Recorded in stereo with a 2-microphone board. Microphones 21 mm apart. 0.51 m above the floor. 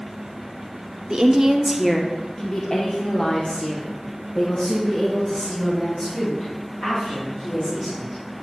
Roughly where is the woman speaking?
Right.